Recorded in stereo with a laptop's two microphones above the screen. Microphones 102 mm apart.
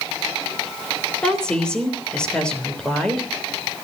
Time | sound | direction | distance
1.2 | a woman speaking | 10° left (ahead or behind) | 3 m